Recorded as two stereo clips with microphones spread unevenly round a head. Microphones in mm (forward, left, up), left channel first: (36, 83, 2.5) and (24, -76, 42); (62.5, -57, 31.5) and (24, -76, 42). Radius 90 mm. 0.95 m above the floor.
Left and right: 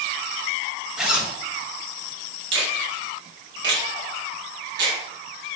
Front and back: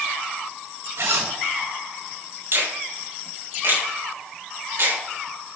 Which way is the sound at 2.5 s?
130° right.